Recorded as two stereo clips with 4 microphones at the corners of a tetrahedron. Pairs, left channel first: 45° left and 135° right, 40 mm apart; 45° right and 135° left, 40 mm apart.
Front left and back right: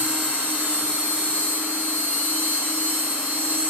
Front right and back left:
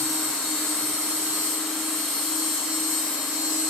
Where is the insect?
115° right, 2 m.